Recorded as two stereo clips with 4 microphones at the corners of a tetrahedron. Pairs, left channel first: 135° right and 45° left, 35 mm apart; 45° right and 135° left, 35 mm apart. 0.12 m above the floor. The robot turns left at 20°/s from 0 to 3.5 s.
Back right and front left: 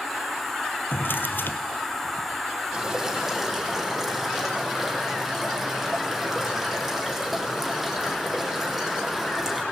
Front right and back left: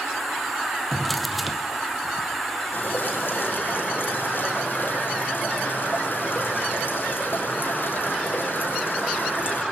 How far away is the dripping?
About 4 m.